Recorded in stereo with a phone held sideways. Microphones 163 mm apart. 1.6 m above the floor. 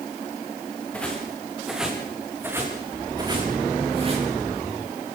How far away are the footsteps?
About 6.5 m.